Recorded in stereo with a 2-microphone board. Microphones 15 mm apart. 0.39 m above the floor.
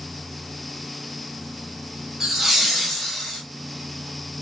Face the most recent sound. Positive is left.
turn(degrees=30)  # may be behind; listen again after turning